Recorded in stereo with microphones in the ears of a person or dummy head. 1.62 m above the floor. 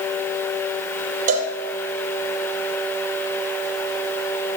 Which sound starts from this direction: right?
A cowbell, at 1.3 s.